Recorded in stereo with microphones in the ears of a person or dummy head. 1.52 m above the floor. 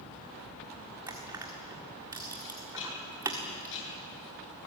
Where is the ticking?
65° left (ahead or behind), 8.5 m.